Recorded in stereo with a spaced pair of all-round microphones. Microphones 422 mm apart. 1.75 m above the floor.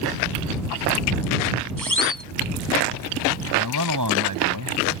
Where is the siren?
50° right (ahead or behind).